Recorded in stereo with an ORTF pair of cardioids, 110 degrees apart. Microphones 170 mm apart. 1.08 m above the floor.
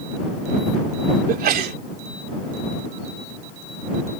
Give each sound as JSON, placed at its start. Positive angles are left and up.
{"t": 1.3, "sound": "a sneeze", "azimuth_deg": -60}